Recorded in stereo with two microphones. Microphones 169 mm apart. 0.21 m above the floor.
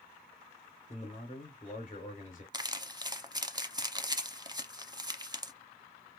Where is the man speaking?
50° left (ahead or behind), 3 m.